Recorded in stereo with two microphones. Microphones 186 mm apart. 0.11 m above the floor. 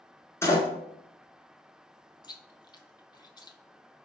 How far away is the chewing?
About 0.6 m.